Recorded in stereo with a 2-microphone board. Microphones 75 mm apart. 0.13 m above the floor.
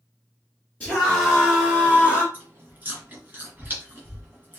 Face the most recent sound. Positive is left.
turn(degrees=-25)  # may be behind; listen again after turning